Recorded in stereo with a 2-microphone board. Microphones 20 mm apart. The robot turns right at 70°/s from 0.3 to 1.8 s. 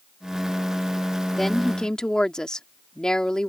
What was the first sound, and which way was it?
A woman speaking, 10° left.